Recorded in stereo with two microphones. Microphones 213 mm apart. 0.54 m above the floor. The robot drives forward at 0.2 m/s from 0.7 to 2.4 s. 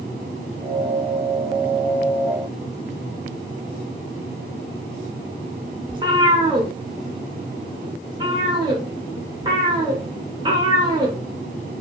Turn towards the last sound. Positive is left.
turn(degrees=-20)  # may be behind; listen again after turning